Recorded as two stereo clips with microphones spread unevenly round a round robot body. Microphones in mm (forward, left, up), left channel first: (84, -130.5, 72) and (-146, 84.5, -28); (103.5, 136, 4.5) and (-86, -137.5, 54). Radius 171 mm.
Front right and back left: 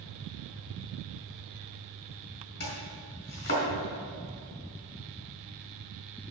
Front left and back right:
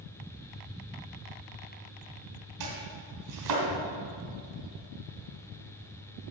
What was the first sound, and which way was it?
Chopping, 110° right.